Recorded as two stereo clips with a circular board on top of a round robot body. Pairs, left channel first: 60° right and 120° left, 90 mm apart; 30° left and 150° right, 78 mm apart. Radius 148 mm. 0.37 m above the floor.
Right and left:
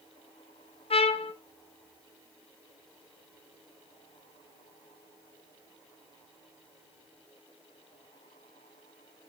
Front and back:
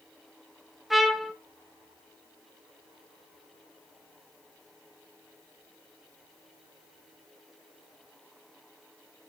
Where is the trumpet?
65° right, 0.7 m.